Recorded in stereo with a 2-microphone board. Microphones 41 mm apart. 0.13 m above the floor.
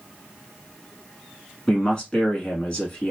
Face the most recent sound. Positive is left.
turn(degrees=20)  # may be behind; listen again after turning